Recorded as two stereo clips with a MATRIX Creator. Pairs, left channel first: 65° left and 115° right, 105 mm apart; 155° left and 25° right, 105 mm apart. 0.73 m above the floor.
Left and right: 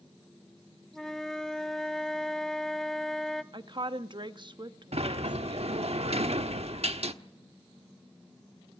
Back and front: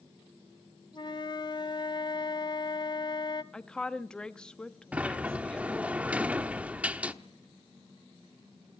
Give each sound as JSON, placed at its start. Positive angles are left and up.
{"t": 0.9, "sound": "a flute", "azimuth_deg": 150, "distance_m": 0.7}
{"t": 3.5, "sound": "a woman speaking", "azimuth_deg": -120, "distance_m": 0.9}
{"t": 4.9, "sound": "a sliding door", "azimuth_deg": -100, "distance_m": 1.0}